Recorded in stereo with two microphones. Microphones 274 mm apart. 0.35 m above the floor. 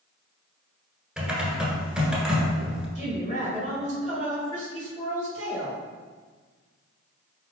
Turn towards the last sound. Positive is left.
turn(degrees=25)  # may be behind; listen again after turning